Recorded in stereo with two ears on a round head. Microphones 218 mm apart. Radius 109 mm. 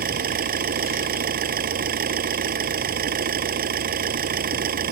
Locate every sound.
0.0 s an engine running: 40° right (ahead or behind)